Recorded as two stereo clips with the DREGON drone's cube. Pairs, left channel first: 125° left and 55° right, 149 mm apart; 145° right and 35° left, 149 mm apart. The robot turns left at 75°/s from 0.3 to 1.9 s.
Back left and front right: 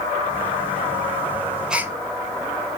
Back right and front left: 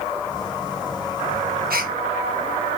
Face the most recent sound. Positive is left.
turn(degrees=15)